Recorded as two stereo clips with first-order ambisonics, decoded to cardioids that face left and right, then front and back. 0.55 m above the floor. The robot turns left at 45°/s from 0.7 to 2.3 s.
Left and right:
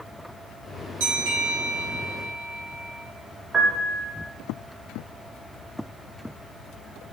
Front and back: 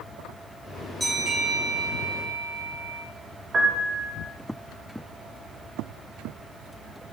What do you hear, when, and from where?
1.0 s a bell: 90° right, 2 m; by 3.0 s 150° right, 2 m
3.5 s a piano: 150° right, 0.6 m